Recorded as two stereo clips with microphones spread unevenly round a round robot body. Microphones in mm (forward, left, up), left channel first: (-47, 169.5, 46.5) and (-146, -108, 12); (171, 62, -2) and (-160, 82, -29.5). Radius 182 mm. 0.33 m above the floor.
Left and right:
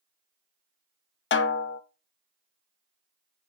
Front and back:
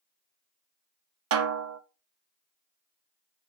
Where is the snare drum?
125° left, 0.8 m.